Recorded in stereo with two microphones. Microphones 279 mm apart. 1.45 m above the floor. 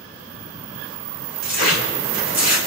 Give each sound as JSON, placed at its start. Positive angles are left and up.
{"t": 1.4, "sound": "tearing paper", "side_deg": 65, "distance_m": 4.0}